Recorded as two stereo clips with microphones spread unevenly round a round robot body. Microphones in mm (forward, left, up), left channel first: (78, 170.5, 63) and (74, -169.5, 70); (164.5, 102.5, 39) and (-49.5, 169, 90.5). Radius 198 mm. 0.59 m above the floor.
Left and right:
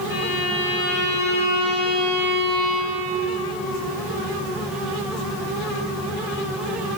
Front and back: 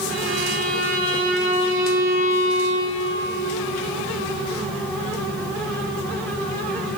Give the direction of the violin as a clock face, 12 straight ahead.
8 o'clock.